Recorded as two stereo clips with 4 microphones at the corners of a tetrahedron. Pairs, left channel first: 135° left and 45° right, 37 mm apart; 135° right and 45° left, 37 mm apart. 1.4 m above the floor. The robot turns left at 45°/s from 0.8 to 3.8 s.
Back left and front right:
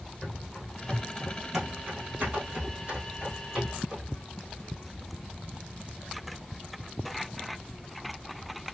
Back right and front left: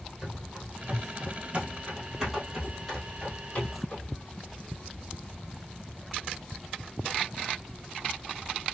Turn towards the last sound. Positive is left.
turn(degrees=-110)